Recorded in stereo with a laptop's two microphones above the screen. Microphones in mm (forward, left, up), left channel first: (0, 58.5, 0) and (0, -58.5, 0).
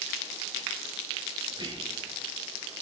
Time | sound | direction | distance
1.5 | whispering | 40° right (ahead or behind) | 0.7 m